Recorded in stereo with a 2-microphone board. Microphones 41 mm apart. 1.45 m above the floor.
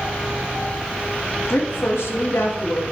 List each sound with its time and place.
1.5 s a woman speaking: 80° left, 2.5 m